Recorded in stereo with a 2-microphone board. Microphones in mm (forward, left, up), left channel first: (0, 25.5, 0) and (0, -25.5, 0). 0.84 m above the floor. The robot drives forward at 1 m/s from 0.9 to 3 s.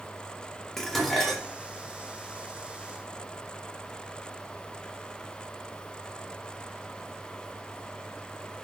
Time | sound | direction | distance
0.8 | dishes clattering | 5° left (ahead or behind) | 1.3 m